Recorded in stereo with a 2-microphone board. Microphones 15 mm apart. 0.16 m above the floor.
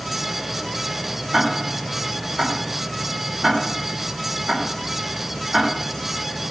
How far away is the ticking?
About 6.5 m.